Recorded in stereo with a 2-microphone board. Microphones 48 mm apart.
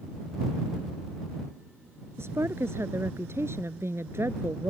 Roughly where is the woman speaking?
Right.